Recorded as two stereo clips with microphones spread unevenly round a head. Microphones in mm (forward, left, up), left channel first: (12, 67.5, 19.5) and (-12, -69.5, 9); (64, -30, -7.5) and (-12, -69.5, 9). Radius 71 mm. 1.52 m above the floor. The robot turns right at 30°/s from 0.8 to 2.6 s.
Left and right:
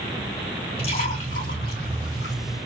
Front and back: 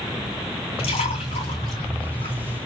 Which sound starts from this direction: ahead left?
A splash, at 0.8 s.